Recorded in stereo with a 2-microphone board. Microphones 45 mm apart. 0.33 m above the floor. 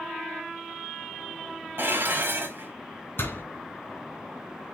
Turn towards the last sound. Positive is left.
turn(degrees=55)  # may be behind; listen again after turning